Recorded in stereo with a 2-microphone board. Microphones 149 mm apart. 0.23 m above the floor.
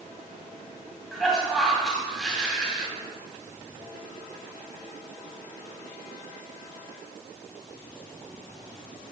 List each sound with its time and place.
1.1 s a cough: centre (ahead or behind), 1.9 m